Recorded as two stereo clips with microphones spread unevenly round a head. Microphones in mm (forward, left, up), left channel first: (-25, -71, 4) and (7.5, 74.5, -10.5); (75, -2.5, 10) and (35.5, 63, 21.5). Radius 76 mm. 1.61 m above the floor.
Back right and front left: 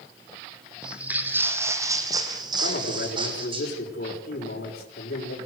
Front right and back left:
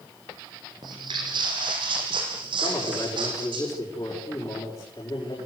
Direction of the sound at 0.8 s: 165° left.